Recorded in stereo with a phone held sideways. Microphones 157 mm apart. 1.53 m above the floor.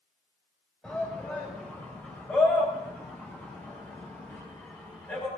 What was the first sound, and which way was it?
A shout, 5° left (ahead or behind).